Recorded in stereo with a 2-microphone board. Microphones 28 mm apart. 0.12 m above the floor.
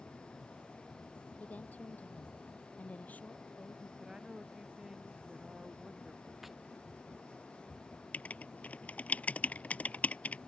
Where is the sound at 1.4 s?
65° left (ahead or behind).